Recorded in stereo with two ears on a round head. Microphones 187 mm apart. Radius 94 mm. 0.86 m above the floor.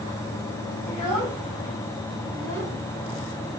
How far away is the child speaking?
About 4 m.